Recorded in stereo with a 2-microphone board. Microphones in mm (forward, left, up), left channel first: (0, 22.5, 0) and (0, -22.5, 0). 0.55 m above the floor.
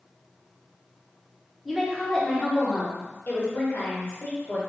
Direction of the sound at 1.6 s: Centre (ahead or behind).